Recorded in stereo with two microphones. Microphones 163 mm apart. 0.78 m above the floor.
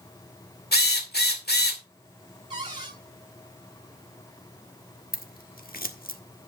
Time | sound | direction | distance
0.7 | a drill | 80° left | 2 m
2.5 | a cupboard door | 30° right (ahead or behind) | 4.5 m
5.1 | scissors | 65° left (ahead or behind) | 1.3 m